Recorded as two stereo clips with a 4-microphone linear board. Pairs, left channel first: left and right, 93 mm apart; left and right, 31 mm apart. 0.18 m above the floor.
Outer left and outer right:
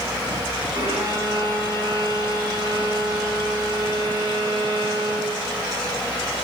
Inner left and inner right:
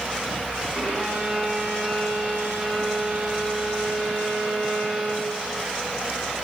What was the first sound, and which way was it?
A violin, 70° right (ahead or behind).